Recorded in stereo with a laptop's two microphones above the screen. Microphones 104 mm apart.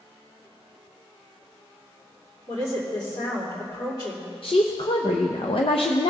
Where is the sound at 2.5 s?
40° left (ahead or behind), 2.5 m.